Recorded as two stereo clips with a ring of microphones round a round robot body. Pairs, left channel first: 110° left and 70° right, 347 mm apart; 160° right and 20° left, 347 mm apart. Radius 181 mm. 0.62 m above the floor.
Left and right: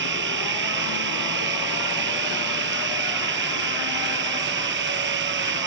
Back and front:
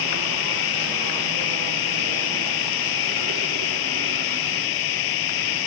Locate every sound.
0.0 s running water: 125° right